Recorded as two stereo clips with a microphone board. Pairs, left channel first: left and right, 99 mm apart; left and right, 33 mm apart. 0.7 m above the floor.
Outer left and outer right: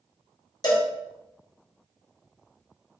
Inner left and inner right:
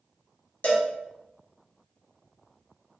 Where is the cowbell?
40° left (ahead or behind), 0.7 m.